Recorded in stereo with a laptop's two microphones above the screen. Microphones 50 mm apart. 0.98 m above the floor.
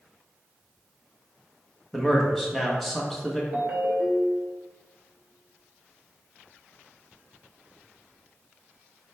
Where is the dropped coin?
I don't hear a dropped coin.